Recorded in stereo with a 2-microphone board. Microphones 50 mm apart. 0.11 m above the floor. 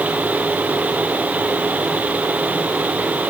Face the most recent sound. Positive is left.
No sound to turn to.